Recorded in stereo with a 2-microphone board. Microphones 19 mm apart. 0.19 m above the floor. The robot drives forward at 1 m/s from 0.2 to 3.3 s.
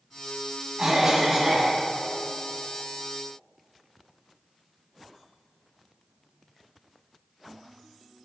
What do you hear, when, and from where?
0.8 s a cough: 25° right (ahead or behind), 1.0 m; by 1.8 s 20° right (ahead or behind), 1.3 m